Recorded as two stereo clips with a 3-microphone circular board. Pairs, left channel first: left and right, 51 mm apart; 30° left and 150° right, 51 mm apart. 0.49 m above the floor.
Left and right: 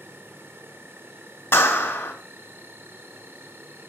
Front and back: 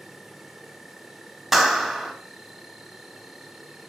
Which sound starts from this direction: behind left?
A clap, at 1.5 s.